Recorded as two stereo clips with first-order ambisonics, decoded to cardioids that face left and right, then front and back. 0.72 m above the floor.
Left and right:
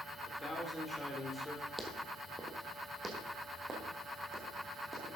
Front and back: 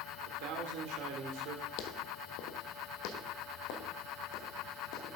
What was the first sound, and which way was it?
A man speaking, 175° left.